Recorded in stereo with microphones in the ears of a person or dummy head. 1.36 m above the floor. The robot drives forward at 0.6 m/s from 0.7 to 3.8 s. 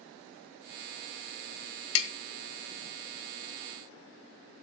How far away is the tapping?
About 1.1 m.